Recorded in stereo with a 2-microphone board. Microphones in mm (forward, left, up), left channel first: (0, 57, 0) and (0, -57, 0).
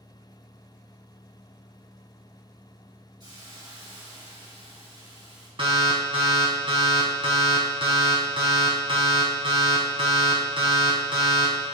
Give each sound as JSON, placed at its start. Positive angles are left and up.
{"t": 3.2, "sound": "a hiss", "side_deg": -40, "distance_m": 3.5}
{"t": 5.6, "sound": "an alarm", "side_deg": -55, "distance_m": 1.8}